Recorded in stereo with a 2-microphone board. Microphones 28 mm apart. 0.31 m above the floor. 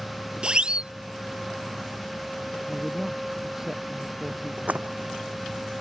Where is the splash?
70° right (ahead or behind).